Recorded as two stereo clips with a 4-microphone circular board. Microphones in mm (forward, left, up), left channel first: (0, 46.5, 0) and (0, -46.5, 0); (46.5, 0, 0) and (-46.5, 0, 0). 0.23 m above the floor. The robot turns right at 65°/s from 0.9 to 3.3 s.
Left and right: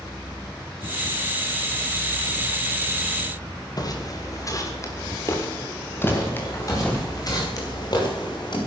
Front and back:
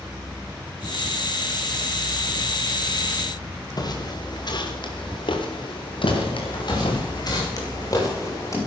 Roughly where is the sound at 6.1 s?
Ahead left.